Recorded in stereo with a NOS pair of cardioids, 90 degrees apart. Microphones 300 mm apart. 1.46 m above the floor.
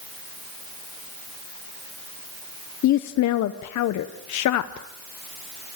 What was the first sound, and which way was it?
A woman speaking, 70° left.